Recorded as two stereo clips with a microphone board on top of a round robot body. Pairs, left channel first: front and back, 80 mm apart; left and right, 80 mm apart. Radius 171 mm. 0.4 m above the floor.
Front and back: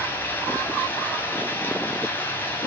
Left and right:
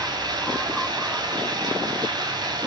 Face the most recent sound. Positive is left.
turn(degrees=-60)